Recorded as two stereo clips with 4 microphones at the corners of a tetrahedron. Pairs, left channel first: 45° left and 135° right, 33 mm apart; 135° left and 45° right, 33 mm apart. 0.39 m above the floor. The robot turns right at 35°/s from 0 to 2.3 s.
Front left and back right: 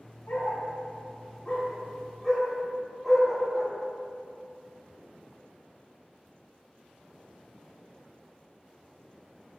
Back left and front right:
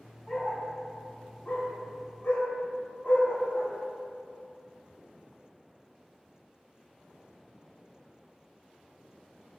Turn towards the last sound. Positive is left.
turn(degrees=135)